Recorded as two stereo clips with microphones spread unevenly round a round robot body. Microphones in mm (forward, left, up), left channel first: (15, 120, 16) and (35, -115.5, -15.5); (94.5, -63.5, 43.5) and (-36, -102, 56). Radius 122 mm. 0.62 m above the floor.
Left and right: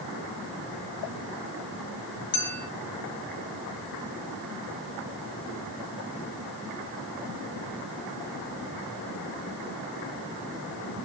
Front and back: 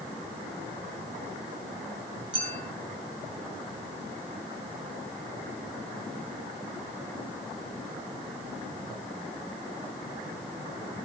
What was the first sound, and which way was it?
A clink, 130° left.